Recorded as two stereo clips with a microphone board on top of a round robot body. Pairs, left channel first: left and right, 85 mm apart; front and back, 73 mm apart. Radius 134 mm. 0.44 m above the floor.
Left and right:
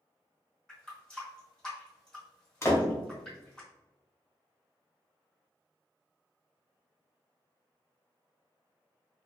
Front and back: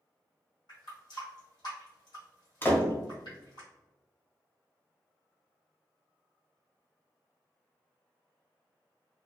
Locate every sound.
0.7 s a running tap: 10° left, 1.6 m
2.6 s a door slam: 50° left, 0.9 m